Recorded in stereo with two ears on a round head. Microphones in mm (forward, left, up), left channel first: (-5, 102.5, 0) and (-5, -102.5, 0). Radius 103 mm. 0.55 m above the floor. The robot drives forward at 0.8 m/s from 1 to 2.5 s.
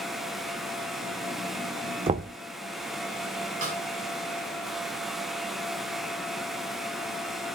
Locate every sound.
2.1 s knocking: 25° right (ahead or behind), 0.7 m; by 2.3 s 30° right (ahead or behind), 0.6 m
3.6 s a snare drum: 35° right (ahead or behind), 4 m